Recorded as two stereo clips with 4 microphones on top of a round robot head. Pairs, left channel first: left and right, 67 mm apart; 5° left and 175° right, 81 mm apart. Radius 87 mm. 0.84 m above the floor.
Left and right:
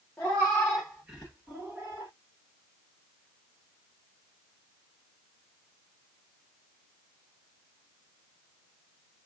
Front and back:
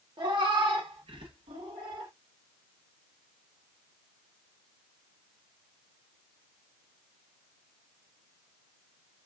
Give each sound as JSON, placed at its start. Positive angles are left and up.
{"t": 0.2, "sound": "a cat meowing", "azimuth_deg": 160, "distance_m": 1.3}